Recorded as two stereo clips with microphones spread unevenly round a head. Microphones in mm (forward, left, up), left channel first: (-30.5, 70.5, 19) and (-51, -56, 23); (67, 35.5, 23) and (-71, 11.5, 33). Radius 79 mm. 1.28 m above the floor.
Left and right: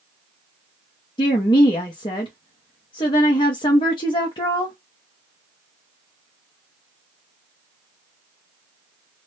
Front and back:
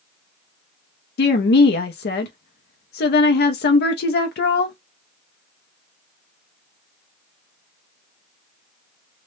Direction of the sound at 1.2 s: 15° left.